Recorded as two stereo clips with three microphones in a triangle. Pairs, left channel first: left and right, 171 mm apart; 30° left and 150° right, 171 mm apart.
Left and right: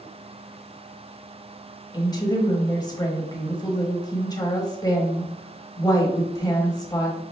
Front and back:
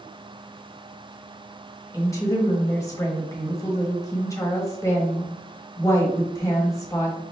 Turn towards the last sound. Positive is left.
turn(degrees=70)